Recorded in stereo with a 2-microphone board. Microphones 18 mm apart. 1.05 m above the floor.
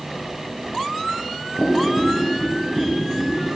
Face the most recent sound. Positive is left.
turn(degrees=-10)  # may be behind; listen again after turning